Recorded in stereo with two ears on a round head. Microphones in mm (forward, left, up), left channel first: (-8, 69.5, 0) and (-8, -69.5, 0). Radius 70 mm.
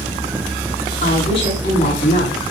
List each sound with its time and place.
1.0 s a woman speaking: 35° left (ahead or behind), 7.5 m